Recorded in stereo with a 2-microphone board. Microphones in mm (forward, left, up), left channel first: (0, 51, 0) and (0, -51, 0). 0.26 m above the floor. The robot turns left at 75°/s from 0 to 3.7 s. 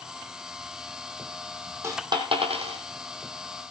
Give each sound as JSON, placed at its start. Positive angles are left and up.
{"t": 1.8, "sound": "a dropped coin", "side_deg": -25, "distance_m": 2.5}